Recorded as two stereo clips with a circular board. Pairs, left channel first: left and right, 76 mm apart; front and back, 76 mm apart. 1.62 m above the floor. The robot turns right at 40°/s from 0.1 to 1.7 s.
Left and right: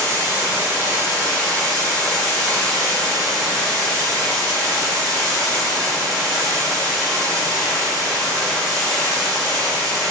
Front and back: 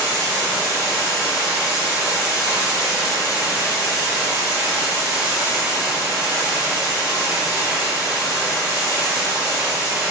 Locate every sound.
0.0 s running water: 55° right, 1.5 m; by 10.1 s 5° left, 1.5 m